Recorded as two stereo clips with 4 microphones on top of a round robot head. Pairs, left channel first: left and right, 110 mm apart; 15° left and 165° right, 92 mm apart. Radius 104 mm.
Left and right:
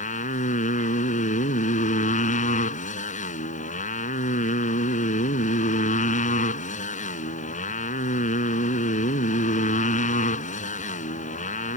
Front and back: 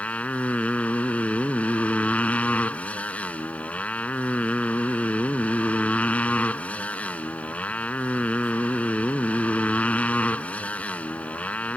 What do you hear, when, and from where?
0.0 s a motorcycle: 90° left